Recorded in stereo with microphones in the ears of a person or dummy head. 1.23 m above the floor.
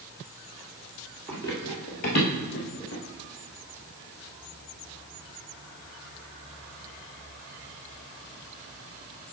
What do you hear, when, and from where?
1.3 s running footsteps: 10° left (ahead or behind), 1.3 m; by 3.0 s 60° left (ahead or behind), 2.5 m